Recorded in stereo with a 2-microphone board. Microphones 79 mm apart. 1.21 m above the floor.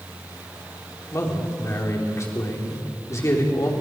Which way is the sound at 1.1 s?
40° left (ahead or behind).